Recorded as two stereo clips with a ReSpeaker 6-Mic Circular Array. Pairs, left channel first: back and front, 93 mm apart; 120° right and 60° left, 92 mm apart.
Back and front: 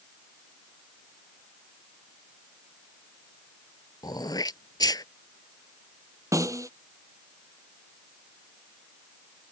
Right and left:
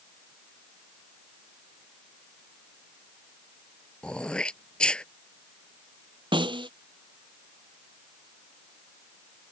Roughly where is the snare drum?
Ahead left.